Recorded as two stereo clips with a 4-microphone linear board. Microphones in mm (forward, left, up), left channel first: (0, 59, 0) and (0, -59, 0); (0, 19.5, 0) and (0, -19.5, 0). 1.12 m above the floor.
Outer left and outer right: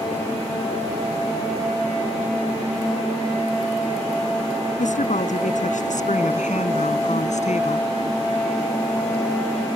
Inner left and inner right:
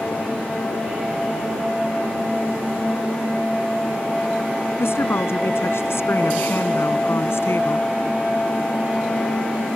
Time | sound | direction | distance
4.8 | a woman speaking | 90° left | ?